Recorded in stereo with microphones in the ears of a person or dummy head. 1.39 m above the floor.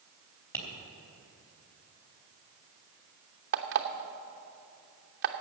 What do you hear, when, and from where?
0.5 s tapping: 15° left (ahead or behind), 3.5 m
3.5 s an alarm clock: 45° right (ahead or behind), 0.8 m